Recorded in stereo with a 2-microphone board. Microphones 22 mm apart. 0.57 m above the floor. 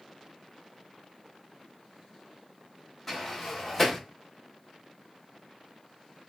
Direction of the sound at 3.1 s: 15° left (ahead or behind).